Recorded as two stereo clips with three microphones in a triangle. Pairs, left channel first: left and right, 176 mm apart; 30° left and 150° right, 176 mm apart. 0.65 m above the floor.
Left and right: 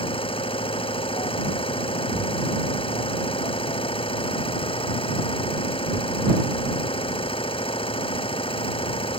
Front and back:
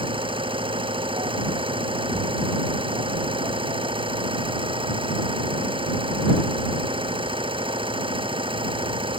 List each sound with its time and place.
0.0 s an engine running: 150° left